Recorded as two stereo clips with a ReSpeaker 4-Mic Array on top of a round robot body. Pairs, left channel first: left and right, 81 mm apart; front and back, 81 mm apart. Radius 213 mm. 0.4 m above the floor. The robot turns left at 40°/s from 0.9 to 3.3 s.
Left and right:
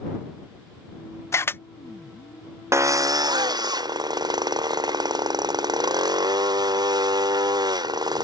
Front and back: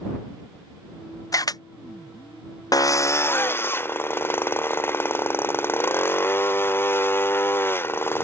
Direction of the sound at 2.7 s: 35° right.